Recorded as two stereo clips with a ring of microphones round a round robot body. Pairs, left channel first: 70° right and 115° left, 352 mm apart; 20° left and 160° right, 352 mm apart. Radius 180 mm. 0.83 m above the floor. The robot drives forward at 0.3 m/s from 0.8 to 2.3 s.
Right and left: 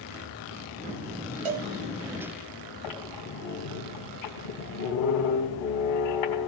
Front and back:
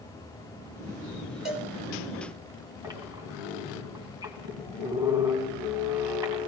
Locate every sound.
1.4 s a cowbell: 115° left, 1.9 m
2.8 s a squeak: 80° right, 2.5 m